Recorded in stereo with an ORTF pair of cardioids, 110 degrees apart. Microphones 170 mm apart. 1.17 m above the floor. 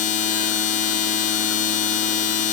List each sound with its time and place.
0.0 s a machine running: 50° left, 1.3 m